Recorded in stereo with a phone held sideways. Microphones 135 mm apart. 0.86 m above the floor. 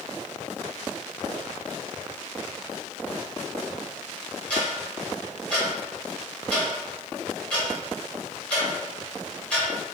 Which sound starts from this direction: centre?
Ticking, at 4.5 s.